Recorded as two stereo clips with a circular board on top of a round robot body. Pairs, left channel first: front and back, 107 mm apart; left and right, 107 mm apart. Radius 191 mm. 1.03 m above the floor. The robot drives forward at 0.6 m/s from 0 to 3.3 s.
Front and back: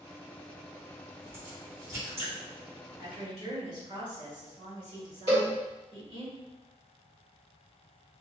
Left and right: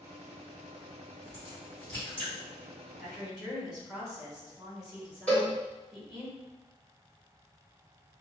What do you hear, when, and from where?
1.2 s a crack: 155° left, 1.3 m; by 2.3 s 165° left, 1.9 m
3.0 s a woman speaking: 175° right, 1.8 m
5.3 s a cowbell: 170° left, 1.8 m